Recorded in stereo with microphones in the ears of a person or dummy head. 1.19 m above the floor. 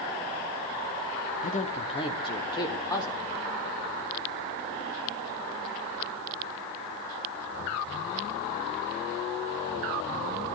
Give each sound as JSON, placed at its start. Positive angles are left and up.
{"t": 1.4, "sound": "a man speaking", "side_deg": 40, "distance_m": 1.9}